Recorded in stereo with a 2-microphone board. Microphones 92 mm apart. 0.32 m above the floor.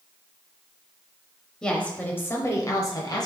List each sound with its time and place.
1.6 s a woman speaking: 10° left (ahead or behind), 1.1 m; by 3.2 s 50° left (ahead or behind), 1.2 m